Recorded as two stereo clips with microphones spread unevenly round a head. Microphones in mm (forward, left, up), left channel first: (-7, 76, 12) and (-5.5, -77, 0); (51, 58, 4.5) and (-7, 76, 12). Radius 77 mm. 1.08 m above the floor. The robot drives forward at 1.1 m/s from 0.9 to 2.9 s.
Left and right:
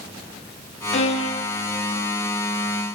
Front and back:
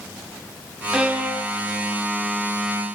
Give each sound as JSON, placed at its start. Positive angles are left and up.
{"t": 0.9, "sound": "a violin", "azimuth_deg": 100, "distance_m": 1.2}